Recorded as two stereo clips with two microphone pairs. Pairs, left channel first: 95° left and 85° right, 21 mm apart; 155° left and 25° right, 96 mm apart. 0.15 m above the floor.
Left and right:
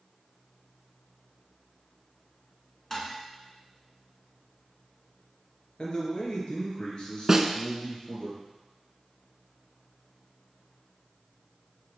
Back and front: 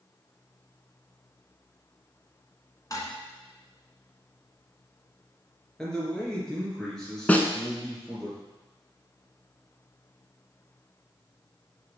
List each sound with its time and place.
2.9 s dishes clattering: 150° left, 1.2 m
5.8 s a man speaking: 75° left, 2.5 m
7.3 s a snare drum: 140° right, 0.6 m